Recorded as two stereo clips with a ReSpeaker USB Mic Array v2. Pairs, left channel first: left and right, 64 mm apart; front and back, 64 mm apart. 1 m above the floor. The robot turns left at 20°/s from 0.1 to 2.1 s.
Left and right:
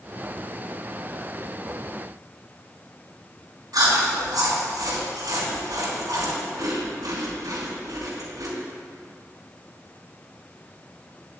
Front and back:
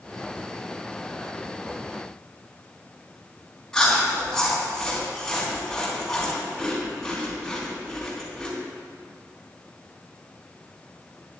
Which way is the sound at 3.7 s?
80° right.